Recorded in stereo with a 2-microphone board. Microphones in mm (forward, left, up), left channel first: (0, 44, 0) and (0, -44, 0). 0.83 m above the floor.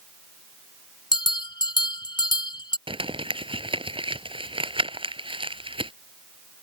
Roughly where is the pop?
I don't hear a pop.